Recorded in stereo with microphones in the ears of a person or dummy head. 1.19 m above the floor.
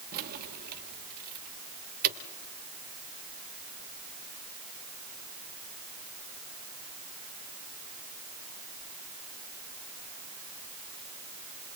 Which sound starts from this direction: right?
Keys jangling, at 0.1 s.